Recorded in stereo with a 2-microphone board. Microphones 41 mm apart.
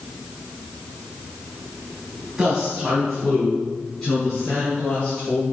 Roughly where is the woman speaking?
Centre.